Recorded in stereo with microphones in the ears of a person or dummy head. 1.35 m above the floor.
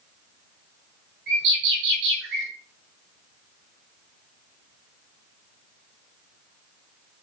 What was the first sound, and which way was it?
A bird, 70° right (ahead or behind).